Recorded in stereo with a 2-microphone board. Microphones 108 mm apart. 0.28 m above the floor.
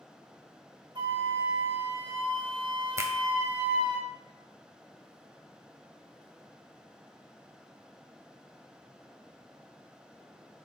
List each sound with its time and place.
0.9 s a flute: 50° right (ahead or behind), 2.0 m
3.0 s a finger snap: 30° right (ahead or behind), 1.1 m